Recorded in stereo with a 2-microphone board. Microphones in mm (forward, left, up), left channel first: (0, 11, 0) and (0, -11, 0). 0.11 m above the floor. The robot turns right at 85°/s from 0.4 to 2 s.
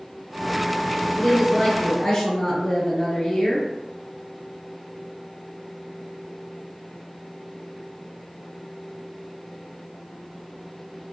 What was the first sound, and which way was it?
A woman speaking, 20° right.